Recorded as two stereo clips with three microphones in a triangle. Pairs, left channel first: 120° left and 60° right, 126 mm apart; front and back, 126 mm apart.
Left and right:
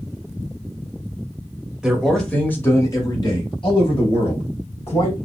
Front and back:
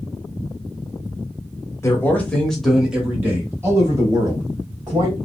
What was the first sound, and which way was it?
A man speaking, 20° left.